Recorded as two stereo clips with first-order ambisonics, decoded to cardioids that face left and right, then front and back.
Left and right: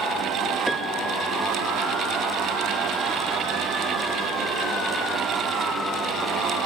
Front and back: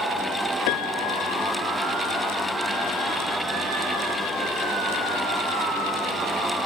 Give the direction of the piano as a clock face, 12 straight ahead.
12 o'clock.